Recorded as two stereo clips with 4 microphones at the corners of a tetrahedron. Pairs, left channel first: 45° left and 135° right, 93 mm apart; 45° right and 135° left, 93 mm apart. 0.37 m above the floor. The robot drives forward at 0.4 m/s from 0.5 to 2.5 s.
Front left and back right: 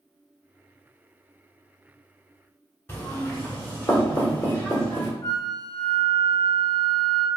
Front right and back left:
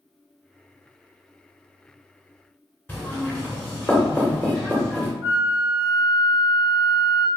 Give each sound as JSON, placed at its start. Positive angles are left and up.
{"t": 2.9, "sound": "knocking", "azimuth_deg": 5, "distance_m": 1.0}
{"t": 5.2, "sound": "a flute", "azimuth_deg": 90, "distance_m": 0.6}